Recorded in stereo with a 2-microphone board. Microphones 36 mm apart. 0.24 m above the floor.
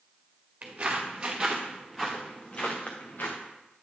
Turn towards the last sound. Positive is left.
turn(degrees=65)  # may be behind; listen again after turning